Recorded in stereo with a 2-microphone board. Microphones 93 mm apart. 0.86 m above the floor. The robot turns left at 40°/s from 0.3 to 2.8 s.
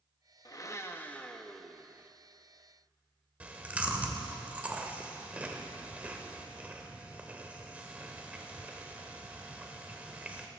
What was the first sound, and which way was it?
A blender, 45° left.